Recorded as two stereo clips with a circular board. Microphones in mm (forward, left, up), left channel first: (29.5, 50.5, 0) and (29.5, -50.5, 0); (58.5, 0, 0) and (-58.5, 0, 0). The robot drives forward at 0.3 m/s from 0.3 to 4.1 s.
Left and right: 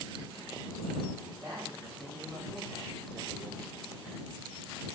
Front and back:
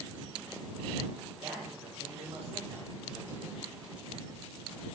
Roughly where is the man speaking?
Behind right.